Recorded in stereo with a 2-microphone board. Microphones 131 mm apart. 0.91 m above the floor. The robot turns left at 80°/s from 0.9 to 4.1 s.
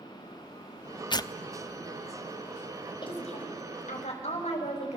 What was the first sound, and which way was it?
Tearing paper, 35° left (ahead or behind).